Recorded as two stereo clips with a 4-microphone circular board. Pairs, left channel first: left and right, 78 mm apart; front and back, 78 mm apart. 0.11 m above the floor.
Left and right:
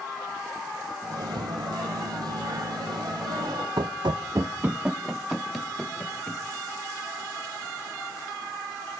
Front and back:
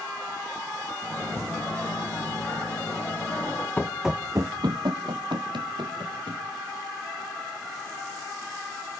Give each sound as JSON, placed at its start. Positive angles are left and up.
{"t": 1.0, "sound": "a microwave", "azimuth_deg": -70, "distance_m": 3.0}
{"t": 3.8, "sound": "running footsteps", "azimuth_deg": -65, "distance_m": 0.6}